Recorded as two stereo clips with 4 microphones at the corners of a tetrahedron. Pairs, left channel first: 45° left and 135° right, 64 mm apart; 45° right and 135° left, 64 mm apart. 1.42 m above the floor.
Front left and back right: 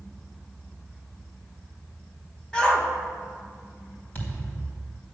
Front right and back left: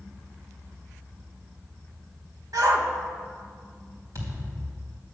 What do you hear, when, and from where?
2.5 s a shout: 120° left, 1.7 m
4.2 s a thud: 100° left, 3.5 m